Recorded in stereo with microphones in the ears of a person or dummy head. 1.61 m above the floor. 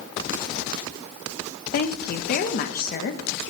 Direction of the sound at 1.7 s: 45° left (ahead or behind).